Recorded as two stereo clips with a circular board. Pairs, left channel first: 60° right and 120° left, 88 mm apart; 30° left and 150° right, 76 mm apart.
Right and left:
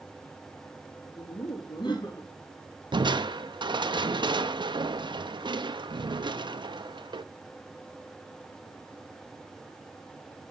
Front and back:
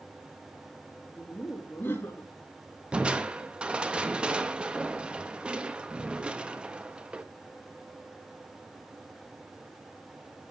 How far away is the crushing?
About 0.9 m.